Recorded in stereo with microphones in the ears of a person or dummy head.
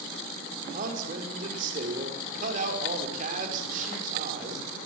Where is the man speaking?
50° right (ahead or behind), 5.5 m.